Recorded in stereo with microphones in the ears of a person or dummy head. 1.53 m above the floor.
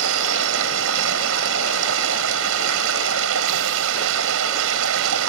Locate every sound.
0.0 s running water: 80° right